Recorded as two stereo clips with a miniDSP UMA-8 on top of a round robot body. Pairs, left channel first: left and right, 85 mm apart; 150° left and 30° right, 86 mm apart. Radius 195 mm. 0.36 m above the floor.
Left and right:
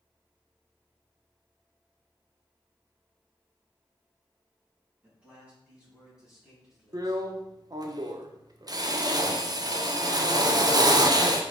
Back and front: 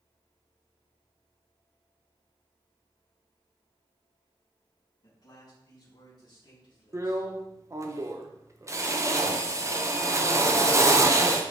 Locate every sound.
5.0 s a man speaking: 165° right, 4 m; by 7.3 s straight behind, 4 m
6.9 s a drill: 75° right, 1.2 m